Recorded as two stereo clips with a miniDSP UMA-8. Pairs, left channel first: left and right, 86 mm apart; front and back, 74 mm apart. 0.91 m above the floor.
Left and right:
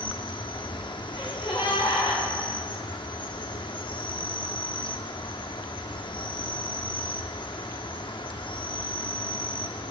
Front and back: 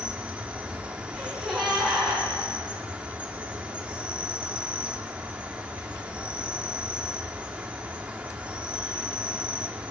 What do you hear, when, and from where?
0.0 s an insect: 105° left, 0.7 m
1.1 s a gasp: 90° left, 3.5 m